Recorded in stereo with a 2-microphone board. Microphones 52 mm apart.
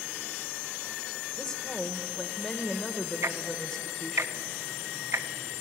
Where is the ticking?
60° right (ahead or behind), 0.8 m.